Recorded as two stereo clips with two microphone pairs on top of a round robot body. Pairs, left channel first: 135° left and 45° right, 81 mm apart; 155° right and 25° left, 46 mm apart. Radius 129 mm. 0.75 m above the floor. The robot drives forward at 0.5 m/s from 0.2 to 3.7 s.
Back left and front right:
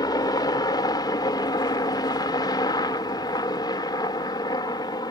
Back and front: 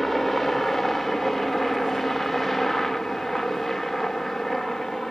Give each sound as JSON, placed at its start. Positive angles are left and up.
{"t": 0.0, "sound": "a helicopter", "azimuth_deg": 125}